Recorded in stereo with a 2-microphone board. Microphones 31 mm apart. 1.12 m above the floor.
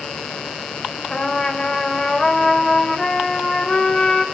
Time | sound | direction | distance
1.1 | a trumpet | 25° left (ahead or behind) | 3 m